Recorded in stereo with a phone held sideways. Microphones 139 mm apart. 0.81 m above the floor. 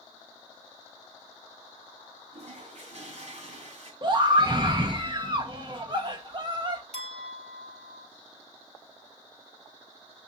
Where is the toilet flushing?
55° right (ahead or behind), 2 m.